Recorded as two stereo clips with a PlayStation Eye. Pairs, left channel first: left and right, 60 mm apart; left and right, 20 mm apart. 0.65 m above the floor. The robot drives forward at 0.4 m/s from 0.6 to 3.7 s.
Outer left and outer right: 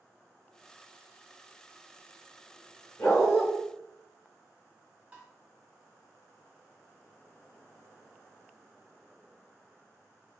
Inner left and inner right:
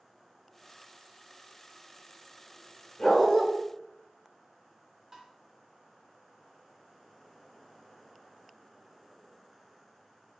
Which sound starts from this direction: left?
A dog barking, at 3.0 s.